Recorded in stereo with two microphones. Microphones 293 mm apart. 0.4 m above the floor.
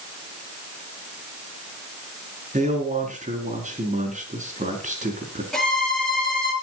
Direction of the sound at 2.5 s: 25° right (ahead or behind).